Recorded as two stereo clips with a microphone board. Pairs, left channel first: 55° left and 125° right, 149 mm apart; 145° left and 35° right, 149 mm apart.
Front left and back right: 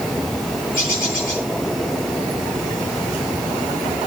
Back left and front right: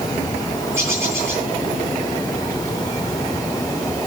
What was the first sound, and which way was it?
A bird, 40° left.